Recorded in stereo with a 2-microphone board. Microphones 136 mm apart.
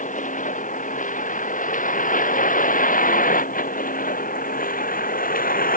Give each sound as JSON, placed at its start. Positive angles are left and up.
{"t": 0.0, "sound": "a vehicle", "side_deg": 65}